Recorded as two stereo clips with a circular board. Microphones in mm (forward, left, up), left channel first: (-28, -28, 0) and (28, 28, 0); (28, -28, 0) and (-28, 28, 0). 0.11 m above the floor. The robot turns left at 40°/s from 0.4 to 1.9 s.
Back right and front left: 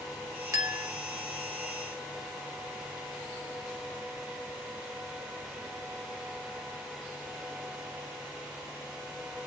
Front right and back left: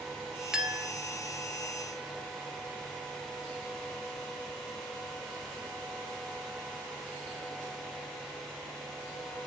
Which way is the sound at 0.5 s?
60° left.